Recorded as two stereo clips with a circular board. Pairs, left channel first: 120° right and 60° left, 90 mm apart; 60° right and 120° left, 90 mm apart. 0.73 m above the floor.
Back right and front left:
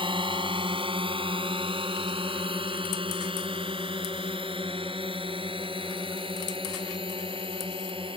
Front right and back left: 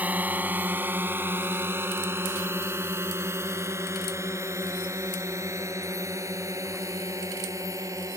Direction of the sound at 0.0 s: 50° left.